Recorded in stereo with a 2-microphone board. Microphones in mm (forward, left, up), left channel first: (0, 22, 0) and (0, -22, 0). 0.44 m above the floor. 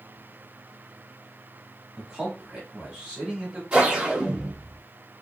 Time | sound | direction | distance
2.0 | a man speaking | 15° right (ahead or behind) | 1.1 m
3.7 | a whoosh | 20° right (ahead or behind) | 0.7 m